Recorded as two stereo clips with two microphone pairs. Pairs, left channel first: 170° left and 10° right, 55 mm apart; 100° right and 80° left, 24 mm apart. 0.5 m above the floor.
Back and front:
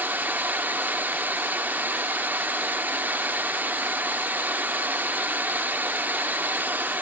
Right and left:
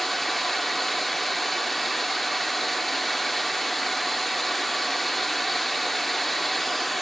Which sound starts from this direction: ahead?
Running water, at 0.0 s.